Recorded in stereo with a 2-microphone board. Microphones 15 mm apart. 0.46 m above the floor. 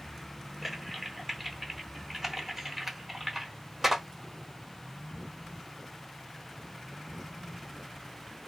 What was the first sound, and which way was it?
Typing on a keyboard, 20° right (ahead or behind).